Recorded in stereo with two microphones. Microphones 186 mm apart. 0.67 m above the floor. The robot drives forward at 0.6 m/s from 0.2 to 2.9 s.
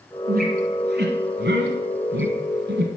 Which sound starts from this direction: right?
A squeak, at 0.3 s.